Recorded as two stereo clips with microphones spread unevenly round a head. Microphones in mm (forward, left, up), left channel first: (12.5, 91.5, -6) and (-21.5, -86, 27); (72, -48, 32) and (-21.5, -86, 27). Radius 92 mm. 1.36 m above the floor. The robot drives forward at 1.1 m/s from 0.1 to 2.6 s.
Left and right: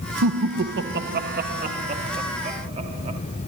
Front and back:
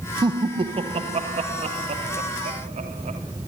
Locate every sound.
0.2 s laughter: 105° right, 1.2 m; by 3.2 s 160° right, 3 m